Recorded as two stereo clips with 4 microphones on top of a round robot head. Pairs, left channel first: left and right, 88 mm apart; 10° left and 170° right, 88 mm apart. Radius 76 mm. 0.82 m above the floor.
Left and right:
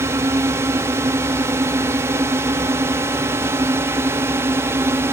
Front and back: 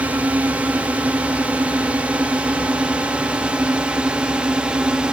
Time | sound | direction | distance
0.0 | a drone | 110° right | ?